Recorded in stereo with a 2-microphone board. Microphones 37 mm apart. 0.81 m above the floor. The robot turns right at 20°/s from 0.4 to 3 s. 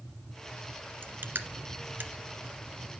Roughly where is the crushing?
Right.